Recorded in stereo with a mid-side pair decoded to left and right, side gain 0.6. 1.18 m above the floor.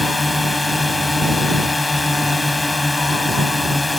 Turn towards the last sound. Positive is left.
turn(degrees=15)